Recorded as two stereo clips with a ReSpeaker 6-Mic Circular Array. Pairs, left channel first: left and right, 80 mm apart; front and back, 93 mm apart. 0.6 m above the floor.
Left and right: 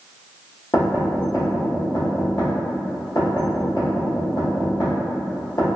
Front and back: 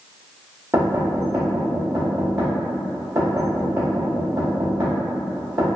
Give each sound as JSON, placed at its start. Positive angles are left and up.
{"t": 0.7, "sound": "knocking", "azimuth_deg": 125, "distance_m": 1.4}